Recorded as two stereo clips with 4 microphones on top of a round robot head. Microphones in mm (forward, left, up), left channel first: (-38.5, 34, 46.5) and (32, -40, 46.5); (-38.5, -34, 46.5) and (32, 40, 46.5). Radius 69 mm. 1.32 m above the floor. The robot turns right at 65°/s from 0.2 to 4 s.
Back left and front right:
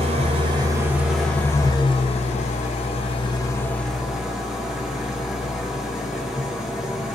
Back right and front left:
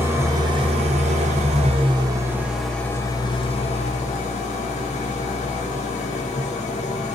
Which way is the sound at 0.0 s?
20° right.